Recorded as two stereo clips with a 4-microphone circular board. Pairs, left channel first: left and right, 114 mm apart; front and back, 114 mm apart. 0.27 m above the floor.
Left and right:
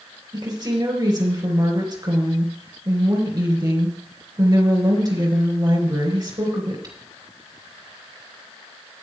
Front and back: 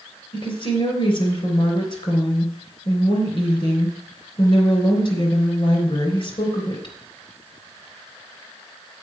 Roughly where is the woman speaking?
Ahead right.